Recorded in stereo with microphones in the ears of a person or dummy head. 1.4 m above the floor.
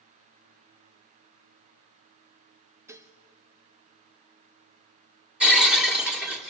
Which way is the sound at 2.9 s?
15° right (ahead or behind).